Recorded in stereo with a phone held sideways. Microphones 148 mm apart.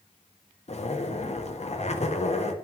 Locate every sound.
0.7 s a zipper: 45° left (ahead or behind), 0.7 m